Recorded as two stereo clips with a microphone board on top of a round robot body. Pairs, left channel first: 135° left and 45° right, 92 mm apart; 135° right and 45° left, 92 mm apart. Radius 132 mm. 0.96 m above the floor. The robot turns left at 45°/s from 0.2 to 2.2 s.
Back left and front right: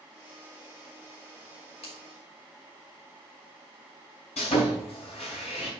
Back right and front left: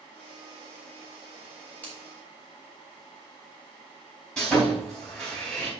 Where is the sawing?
140° left, 3.5 m.